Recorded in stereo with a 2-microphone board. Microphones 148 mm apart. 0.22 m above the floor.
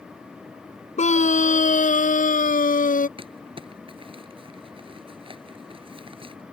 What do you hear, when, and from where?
1.0 s a scream: 55° left (ahead or behind); by 3.1 s 70° left (ahead or behind)
3.2 s crumpling: 40° right (ahead or behind)